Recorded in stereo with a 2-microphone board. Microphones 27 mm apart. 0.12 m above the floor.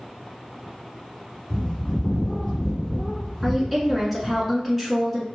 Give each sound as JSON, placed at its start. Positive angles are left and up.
{"t": 1.5, "sound": "a bird", "side_deg": 20, "distance_m": 1.9}
{"t": 3.4, "sound": "a woman speaking", "side_deg": 5, "distance_m": 1.1}